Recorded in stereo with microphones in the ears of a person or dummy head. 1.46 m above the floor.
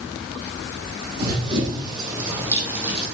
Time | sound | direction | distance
1.2 | running footsteps | 30° right (ahead or behind) | 3.5 m